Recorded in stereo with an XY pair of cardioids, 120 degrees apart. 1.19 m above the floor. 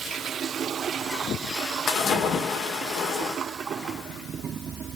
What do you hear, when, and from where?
1.9 s a splash: 60° left, 2.5 m